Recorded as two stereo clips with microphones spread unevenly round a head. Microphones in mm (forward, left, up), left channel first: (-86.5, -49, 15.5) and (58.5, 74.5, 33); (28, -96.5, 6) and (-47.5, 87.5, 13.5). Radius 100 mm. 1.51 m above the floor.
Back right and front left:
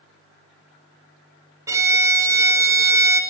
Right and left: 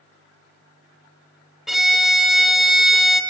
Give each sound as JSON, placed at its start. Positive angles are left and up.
{"t": 1.7, "sound": "a violin", "azimuth_deg": 30, "distance_m": 1.2}